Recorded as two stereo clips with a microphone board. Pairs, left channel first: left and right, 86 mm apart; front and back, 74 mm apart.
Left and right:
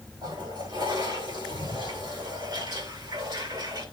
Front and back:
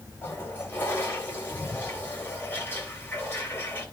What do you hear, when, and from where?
0.2 s a toilet flushing: 60° right, 3.5 m